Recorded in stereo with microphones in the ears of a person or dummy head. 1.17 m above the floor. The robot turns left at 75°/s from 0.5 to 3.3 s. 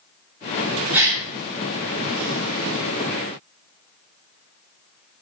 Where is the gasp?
10° right (ahead or behind), 0.9 m; by 1.3 s 35° right (ahead or behind), 0.9 m.